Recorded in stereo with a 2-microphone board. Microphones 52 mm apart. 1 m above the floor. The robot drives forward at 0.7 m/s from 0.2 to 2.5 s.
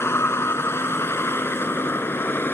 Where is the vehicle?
55° left (ahead or behind); by 2.5 s 45° left (ahead or behind).